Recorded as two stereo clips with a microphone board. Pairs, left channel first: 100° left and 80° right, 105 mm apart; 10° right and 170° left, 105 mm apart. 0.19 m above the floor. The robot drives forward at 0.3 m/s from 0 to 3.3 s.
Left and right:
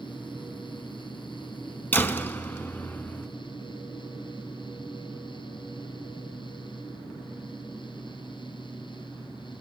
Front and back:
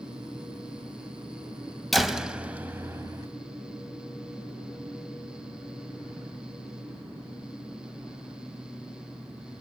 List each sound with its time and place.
1.9 s a door slam: 75° left, 0.7 m; by 3.3 s 145° left, 0.8 m